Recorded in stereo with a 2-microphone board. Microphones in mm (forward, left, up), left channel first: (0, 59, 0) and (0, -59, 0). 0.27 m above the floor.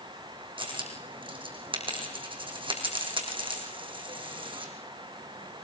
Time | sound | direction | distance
0.6 | a dropped coin | 45° right (ahead or behind) | 3.5 m